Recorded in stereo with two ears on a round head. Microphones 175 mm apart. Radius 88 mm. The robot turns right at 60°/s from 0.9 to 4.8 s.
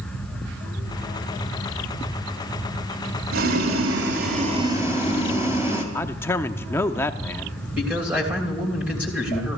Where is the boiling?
105° right, 2.5 m; by 5.8 s 15° right, 2.5 m.